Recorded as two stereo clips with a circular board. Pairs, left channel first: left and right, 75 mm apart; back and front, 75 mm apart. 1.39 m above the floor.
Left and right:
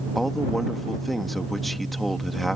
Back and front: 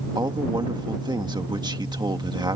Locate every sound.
0.1 s a man speaking: straight ahead